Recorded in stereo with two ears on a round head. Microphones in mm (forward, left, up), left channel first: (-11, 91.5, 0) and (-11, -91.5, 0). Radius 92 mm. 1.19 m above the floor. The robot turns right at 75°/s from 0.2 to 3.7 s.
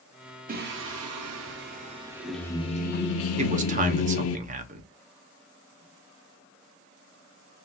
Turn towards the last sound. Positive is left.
turn(degrees=-35)  # may be behind; listen again after turning